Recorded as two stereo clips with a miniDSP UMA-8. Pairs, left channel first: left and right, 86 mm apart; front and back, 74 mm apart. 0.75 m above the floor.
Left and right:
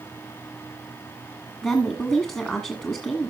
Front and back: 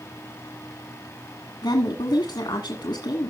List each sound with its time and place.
1.6 s a woman speaking: 10° left, 1.4 m